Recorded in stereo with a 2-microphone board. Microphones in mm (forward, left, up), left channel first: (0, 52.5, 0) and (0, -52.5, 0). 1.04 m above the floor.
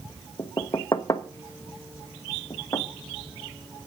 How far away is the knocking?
About 0.9 m.